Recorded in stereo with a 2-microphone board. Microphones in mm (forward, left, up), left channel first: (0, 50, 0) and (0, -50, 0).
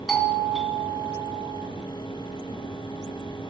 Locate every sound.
0.1 s a doorbell: centre (ahead or behind), 1.7 m